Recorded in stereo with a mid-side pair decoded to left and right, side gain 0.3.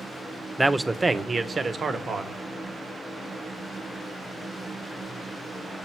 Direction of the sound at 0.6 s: 15° right.